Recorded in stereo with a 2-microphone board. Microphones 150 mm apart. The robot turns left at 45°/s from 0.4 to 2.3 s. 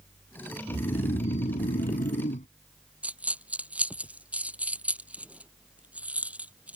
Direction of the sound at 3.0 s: 10° right (ahead or behind).